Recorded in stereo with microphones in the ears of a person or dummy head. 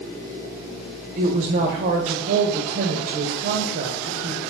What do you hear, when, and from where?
1.2 s a woman speaking: 40° right (ahead or behind), 0.7 m